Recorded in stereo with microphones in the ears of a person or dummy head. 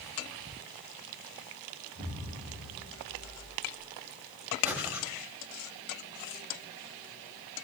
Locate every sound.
1.9 s an explosion: 30° right (ahead or behind), 3 m
4.6 s breathing: 10° right (ahead or behind), 1.2 m